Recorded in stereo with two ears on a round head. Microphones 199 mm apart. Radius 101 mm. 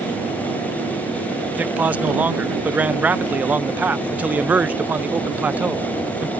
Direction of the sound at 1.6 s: 5° right (ahead or behind).